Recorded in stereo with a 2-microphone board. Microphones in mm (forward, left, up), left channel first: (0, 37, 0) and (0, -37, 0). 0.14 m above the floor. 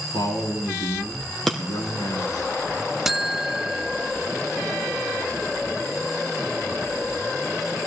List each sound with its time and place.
0.1 s a man speaking: 70° left (ahead or behind), 5 m
1.5 s breaking glass: 5° left (ahead or behind), 2.5 m
3.0 s a buzzer: 5° right (ahead or behind), 0.5 m